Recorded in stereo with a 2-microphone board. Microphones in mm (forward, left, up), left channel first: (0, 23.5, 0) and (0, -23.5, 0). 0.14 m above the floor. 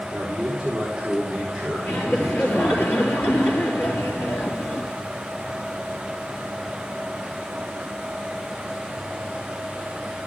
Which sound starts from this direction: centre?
A man speaking, at 0.1 s.